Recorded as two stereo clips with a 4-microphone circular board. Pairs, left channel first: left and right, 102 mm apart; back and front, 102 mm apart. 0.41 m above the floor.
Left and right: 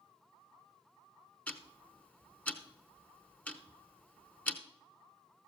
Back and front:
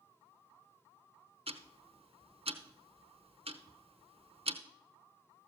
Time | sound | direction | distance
1.5 | ticking | 15° left | 0.9 m